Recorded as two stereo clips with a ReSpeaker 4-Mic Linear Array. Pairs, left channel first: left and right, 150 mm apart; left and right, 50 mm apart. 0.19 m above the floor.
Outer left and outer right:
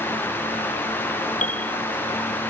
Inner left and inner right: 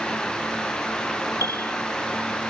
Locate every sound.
1.4 s a piano: 60° left (ahead or behind)